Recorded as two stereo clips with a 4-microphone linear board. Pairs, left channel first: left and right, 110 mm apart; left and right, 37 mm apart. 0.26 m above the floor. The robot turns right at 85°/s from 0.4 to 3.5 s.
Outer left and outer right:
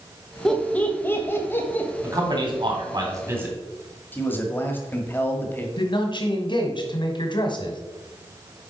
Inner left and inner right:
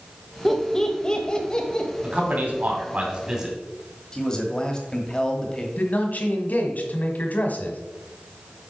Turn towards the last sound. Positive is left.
turn(degrees=50)  # may be behind; listen again after turning